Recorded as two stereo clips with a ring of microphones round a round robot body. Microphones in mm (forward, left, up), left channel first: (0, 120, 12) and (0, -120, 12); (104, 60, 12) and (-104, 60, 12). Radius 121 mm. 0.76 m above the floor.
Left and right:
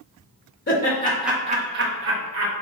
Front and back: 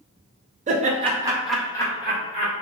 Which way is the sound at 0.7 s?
130° left.